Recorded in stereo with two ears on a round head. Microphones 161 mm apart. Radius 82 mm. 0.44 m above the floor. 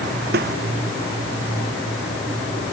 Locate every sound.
0.3 s a snare drum: 55° right (ahead or behind)